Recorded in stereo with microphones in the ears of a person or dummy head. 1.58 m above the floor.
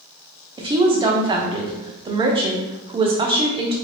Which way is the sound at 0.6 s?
25° right (ahead or behind).